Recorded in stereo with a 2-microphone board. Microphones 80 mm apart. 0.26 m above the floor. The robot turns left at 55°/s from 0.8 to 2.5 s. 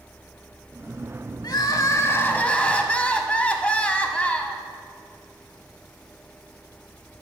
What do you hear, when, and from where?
1.4 s crying: 80° left, 0.5 m; by 4.6 s 20° left, 0.5 m